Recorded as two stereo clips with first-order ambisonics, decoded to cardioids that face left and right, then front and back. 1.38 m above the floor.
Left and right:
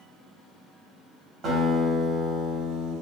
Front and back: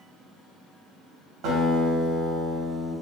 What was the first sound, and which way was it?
A guitar, 145° right.